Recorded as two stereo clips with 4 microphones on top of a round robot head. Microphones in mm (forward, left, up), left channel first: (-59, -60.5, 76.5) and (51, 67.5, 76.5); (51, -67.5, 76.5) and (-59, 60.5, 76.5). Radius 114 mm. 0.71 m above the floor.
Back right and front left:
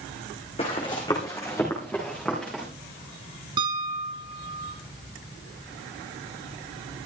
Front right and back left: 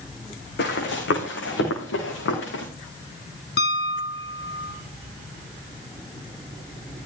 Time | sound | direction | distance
0.6 | running footsteps | 70° right | 3.5 m
3.6 | a piano | 15° right | 2.5 m